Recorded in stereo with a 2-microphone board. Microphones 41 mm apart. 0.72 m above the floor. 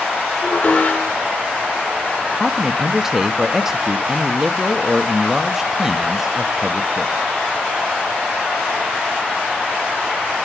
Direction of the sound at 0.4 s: 50° left (ahead or behind).